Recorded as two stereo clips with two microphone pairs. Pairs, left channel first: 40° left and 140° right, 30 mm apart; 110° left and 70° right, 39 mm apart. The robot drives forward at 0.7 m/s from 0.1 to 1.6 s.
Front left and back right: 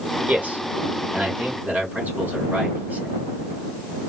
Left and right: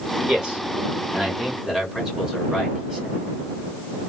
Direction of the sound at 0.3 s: 140° right.